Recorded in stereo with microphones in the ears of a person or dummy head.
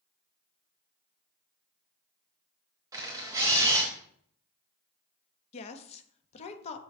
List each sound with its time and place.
2.9 s a camera shutter: 15° right (ahead or behind), 1.1 m
5.5 s a woman speaking: 35° left (ahead or behind), 0.8 m